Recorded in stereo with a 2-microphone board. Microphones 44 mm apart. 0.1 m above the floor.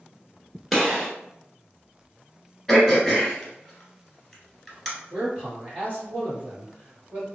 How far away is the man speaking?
About 1.9 m.